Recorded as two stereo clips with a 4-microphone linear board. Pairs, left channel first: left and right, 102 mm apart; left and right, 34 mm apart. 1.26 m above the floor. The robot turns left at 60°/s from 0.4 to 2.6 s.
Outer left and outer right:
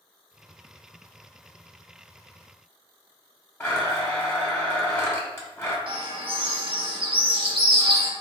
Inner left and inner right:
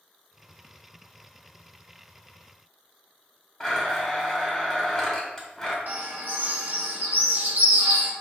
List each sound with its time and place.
3.6 s a blender: 25° left (ahead or behind), 1.2 m
5.9 s a bird: 55° right (ahead or behind), 1.0 m